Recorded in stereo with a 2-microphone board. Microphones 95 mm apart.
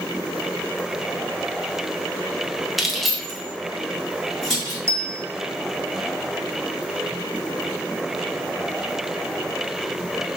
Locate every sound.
2.8 s keys jangling: centre (ahead or behind), 0.7 m; by 4.8 s 5° left (ahead or behind), 3 m
4.9 s a bell: 30° right (ahead or behind), 0.5 m